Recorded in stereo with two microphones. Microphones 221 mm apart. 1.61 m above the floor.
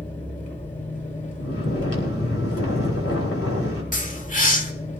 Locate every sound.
0.0 s an engine running: 30° left (ahead or behind), 2.5 m
1.4 s snoring: 80° left, 5 m
3.9 s a bird: 35° left (ahead or behind), 1.6 m